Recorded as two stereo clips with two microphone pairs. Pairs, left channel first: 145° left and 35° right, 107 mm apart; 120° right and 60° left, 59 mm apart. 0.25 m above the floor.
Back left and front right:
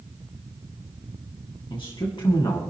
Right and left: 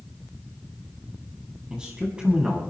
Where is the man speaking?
130° left, 2 m.